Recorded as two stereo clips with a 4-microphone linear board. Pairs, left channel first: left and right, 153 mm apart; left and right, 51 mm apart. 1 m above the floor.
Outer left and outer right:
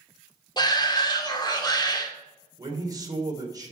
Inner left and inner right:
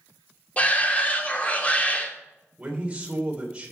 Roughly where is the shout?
Left.